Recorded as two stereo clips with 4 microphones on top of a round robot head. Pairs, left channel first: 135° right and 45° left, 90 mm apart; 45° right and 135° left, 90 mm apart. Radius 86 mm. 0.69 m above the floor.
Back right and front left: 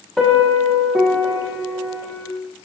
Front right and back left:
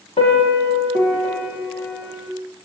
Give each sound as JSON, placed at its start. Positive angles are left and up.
{"t": 0.2, "sound": "a piano", "azimuth_deg": -50, "distance_m": 6.0}